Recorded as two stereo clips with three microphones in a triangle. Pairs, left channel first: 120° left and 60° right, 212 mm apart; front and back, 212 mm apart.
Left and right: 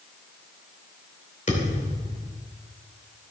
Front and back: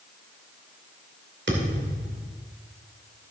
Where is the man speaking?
I don't hear a man speaking.